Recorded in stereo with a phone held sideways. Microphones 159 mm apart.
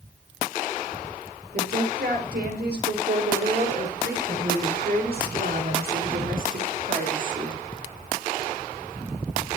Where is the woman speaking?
80° right, 5 m; by 7.6 s 50° right (ahead or behind), 3.5 m.